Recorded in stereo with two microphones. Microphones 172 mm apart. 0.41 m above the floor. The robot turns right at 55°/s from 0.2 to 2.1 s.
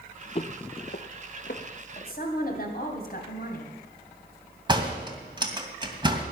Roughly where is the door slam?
Right.